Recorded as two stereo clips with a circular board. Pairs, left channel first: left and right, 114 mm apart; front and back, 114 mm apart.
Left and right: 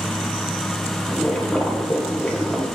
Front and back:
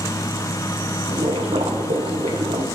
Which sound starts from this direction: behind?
Boiling, at 1.1 s.